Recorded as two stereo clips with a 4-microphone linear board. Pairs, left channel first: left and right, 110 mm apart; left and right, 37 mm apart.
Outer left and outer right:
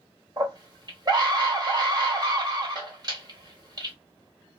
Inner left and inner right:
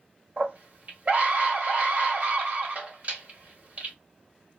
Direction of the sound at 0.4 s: 40° right (ahead or behind).